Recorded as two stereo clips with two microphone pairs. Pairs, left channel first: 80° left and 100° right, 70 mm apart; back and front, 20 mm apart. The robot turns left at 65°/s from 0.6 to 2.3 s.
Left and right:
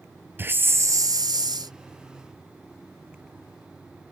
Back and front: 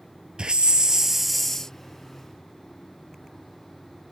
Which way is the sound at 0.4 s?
45° right.